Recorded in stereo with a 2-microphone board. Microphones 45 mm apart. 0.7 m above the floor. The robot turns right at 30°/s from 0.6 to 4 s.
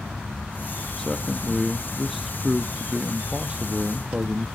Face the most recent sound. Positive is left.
turn(degrees=-115)